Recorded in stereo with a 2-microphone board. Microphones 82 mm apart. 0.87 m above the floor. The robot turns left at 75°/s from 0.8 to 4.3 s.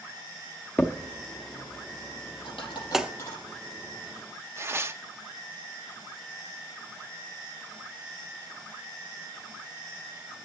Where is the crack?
20° left (ahead or behind), 0.7 m; by 3.1 s 15° right (ahead or behind), 0.7 m.